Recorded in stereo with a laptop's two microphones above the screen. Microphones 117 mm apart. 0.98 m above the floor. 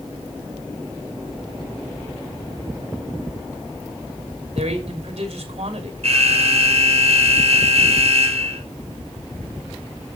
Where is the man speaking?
55° right (ahead or behind), 3 m.